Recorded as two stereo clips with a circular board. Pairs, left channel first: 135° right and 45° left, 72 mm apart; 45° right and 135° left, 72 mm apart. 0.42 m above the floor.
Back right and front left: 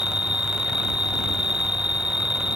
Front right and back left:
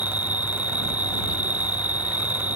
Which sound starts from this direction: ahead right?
An insect, at 0.0 s.